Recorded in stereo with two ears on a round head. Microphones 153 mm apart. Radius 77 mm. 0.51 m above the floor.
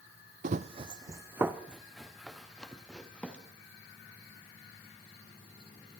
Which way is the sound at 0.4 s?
50° right (ahead or behind).